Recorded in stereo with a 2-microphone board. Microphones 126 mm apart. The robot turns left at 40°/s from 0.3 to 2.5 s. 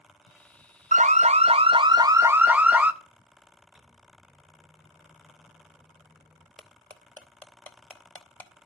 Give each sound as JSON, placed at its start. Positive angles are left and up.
{"t": 0.9, "sound": "an alarm", "azimuth_deg": -105, "distance_m": 0.6}
{"t": 3.8, "sound": "a microwave", "side_deg": 0, "distance_m": 1.4}
{"t": 6.6, "sound": "cutlery clinking", "side_deg": 15, "distance_m": 0.9}